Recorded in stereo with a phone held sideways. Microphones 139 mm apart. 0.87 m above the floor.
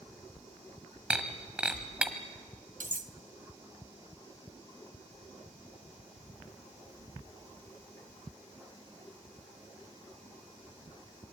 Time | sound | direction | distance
1.1 | breaking glass | 10° right (ahead or behind) | 1.6 m
2.8 | cutlery clinking | 85° right | 0.9 m